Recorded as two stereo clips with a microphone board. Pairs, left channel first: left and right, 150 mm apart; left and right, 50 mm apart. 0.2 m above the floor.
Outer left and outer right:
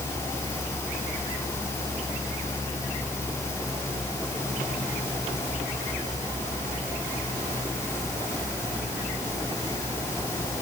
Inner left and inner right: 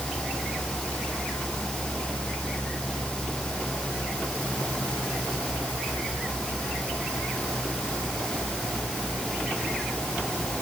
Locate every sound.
Only background noise.